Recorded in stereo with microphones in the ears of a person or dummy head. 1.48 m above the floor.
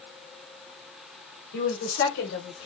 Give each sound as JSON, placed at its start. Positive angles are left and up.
{"t": 1.5, "sound": "a woman speaking", "side_deg": 60, "distance_m": 3.0}